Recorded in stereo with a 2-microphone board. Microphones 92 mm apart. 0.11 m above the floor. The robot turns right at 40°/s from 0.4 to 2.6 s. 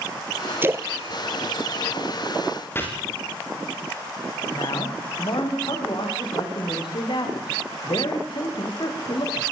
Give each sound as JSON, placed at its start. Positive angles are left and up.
{"t": 0.6, "sound": "a splash", "side_deg": -25, "distance_m": 0.8}
{"t": 2.8, "sound": "chopping", "side_deg": 25, "distance_m": 9.5}
{"t": 4.5, "sound": "a man speaking", "side_deg": 55, "distance_m": 10.0}